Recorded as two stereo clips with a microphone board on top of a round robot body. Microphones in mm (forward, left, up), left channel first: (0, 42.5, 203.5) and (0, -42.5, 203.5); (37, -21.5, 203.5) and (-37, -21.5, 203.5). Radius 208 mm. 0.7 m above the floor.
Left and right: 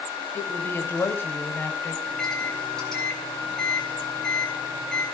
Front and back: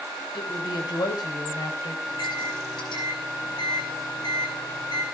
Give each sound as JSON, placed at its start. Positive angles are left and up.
{"t": 0.3, "sound": "a woman speaking", "azimuth_deg": 25, "distance_m": 6.0}
{"t": 2.0, "sound": "a microwave", "azimuth_deg": 10, "distance_m": 6.5}